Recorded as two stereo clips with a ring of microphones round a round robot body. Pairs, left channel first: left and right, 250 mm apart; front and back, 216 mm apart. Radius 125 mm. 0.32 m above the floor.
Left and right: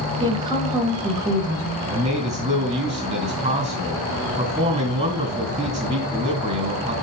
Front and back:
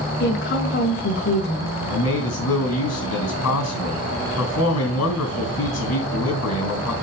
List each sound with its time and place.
0.2 s a woman speaking: 20° right, 1.8 m
1.9 s a man speaking: 25° right, 3.5 m